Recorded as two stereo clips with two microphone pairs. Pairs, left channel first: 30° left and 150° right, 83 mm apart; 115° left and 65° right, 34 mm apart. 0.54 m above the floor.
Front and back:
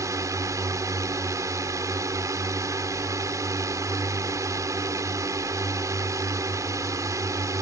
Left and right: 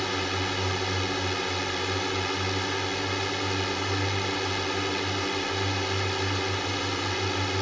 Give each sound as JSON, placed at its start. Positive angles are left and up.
{"t": 0.0, "sound": "a drone", "azimuth_deg": -160}